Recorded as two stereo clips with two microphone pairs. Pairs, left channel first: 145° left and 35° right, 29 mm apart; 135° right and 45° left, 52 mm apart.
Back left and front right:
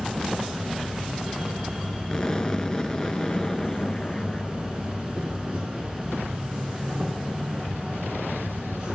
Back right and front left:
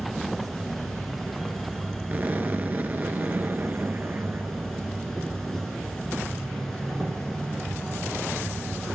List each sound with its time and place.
0.0 s an insect: 55° right, 2.0 m
2.1 s an explosion: 85° left, 0.6 m